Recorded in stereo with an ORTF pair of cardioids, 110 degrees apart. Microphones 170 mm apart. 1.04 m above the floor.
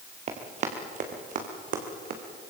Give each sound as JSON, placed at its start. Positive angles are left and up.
{"t": 0.3, "sound": "running footsteps", "azimuth_deg": -40, "distance_m": 3.5}